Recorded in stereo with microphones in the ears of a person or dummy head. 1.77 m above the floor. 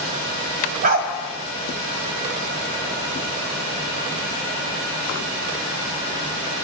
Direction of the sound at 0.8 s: 55° right (ahead or behind).